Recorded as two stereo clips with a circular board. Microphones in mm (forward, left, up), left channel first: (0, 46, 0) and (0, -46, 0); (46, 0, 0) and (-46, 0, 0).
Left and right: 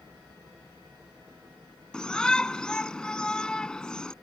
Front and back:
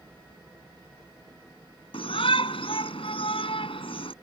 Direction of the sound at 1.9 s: 5° left.